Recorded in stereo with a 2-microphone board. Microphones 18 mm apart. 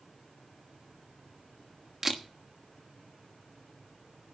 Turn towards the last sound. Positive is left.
turn(degrees=-20)  # may be behind; listen again after turning